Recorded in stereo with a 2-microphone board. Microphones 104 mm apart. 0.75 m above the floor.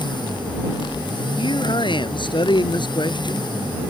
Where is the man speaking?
50° left (ahead or behind).